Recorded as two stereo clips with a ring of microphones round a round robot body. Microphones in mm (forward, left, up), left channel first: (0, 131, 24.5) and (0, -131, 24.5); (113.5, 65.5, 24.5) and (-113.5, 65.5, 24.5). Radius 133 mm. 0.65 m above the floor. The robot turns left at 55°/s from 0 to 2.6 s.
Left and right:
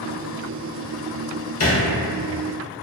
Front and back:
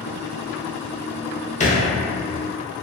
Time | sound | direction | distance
1.6 | a thud | 60° left | 0.6 m